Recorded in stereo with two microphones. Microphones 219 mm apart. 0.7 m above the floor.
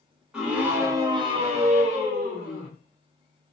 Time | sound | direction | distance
0.3 | a scream | 5° right (ahead or behind) | 1.1 m